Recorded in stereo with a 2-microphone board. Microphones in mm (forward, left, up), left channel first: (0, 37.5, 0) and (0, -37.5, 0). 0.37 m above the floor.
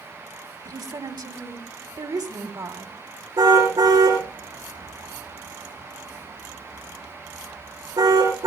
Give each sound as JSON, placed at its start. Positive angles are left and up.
{"t": 0.7, "sound": "a woman speaking", "side_deg": -65, "distance_m": 1.9}
{"t": 3.4, "sound": "a car horn", "side_deg": -65, "distance_m": 8.0}